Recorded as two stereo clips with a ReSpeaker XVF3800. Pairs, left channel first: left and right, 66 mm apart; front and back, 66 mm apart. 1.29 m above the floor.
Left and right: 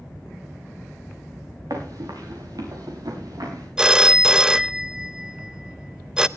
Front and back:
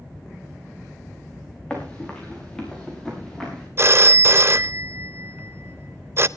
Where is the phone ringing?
160° right, 0.5 m.